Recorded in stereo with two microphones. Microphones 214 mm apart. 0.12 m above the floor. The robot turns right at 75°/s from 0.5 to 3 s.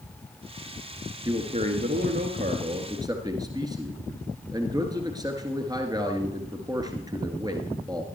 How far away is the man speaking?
About 1.8 m.